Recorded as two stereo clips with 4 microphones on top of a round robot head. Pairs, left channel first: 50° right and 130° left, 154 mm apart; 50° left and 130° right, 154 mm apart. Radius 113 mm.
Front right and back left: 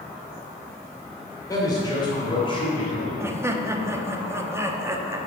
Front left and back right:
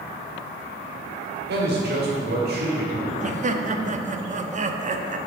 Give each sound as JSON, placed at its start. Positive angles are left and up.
{"t": 1.5, "sound": "a man speaking", "azimuth_deg": -120, "distance_m": 2.0}
{"t": 3.2, "sound": "laughter", "azimuth_deg": -160, "distance_m": 0.9}